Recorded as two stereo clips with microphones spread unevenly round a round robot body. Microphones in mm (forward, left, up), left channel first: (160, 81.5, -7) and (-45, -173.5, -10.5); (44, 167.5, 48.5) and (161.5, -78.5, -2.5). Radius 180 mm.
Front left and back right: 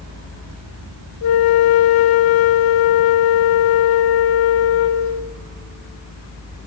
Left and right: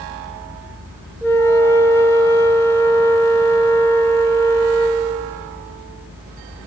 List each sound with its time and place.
1.2 s a flute: 35° left, 0.5 m